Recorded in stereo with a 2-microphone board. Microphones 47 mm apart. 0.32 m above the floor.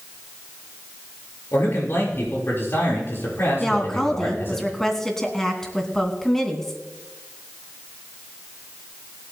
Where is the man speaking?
55° left (ahead or behind), 6 m.